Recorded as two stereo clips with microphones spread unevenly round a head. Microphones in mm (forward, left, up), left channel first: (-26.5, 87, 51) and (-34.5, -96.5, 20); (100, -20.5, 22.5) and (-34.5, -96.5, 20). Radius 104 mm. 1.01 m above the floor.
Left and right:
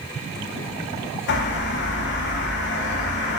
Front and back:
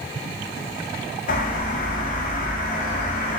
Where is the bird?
60° left, 0.5 m.